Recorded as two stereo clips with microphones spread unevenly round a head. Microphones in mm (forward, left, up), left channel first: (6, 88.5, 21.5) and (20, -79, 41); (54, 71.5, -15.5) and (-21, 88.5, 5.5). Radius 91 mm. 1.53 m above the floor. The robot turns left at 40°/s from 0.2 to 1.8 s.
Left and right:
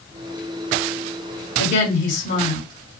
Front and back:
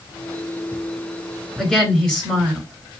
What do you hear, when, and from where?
1.6 s a woman speaking: 80° left, 3 m; by 3.0 s 70° left, 3 m